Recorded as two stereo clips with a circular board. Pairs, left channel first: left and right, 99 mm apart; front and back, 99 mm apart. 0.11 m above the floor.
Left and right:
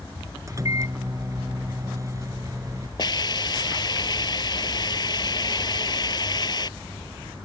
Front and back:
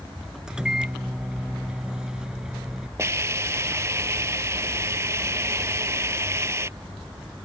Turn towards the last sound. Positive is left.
turn(degrees=125)